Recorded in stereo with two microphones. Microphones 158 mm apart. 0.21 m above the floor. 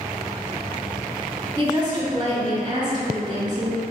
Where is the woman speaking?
30° right (ahead or behind), 1.2 m.